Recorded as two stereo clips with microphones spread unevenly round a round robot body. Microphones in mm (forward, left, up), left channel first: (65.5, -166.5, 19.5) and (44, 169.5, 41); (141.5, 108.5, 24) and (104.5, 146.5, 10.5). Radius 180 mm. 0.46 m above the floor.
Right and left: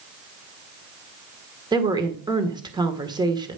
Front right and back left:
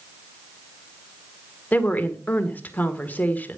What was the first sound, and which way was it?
A woman speaking, 15° left.